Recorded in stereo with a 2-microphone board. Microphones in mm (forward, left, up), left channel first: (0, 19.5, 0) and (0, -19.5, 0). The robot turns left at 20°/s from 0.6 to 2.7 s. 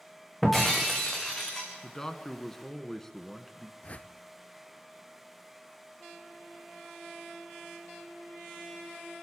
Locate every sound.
0.4 s breaking glass: 5° left (ahead or behind), 3.5 m; by 1.7 s 25° left (ahead or behind), 3.5 m
1.8 s a man speaking: 15° left (ahead or behind), 1.2 m; by 3.7 s 5° left (ahead or behind), 1.2 m
3.8 s a whoosh: 35° left (ahead or behind), 0.6 m